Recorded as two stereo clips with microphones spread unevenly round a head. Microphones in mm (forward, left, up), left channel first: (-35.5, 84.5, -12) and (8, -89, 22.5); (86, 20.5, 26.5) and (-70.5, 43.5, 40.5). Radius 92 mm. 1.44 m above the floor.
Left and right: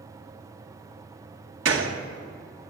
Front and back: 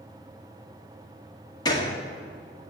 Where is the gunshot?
75° right, 2.0 m.